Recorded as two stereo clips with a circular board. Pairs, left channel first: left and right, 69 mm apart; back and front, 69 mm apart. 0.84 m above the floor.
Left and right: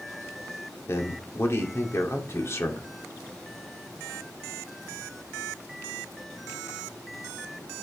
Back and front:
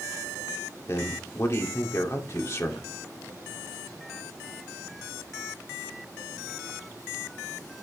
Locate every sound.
0.9 s a man speaking: 135° left, 2 m